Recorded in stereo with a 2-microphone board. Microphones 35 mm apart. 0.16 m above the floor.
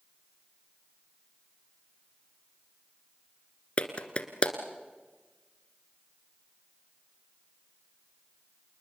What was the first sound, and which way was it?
A clap, 35° left (ahead or behind).